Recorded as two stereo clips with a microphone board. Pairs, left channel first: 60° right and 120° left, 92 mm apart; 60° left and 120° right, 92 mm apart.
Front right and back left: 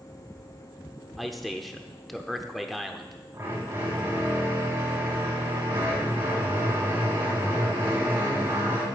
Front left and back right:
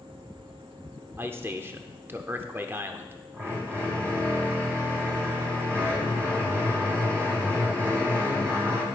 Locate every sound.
1.2 s a man speaking: 145° right, 0.7 m
3.3 s a drill: straight behind, 4 m